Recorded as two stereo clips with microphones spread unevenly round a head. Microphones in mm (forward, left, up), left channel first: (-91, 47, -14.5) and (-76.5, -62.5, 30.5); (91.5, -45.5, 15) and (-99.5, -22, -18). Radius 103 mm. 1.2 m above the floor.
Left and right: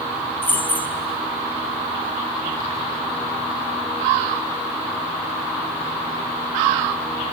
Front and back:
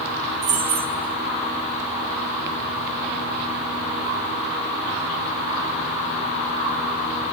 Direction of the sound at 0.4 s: 175° left.